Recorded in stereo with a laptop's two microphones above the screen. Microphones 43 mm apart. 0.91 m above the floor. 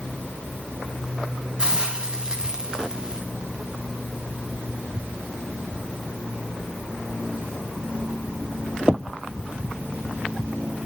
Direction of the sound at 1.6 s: 20° right (ahead or behind).